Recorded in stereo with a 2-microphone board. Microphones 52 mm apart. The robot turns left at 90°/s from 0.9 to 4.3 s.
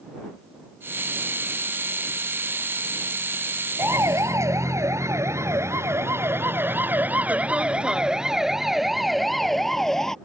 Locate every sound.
3.8 s a siren: 50° right (ahead or behind); by 10.2 s 10° left (ahead or behind)